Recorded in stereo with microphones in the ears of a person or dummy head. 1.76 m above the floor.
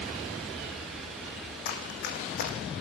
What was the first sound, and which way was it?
Running footsteps, 50° left (ahead or behind).